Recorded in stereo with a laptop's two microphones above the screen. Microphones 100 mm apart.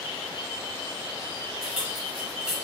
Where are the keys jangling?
5° right (ahead or behind), 0.6 m.